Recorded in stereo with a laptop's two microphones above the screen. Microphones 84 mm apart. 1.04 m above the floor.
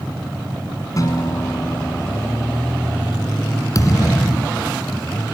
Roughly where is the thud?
Left.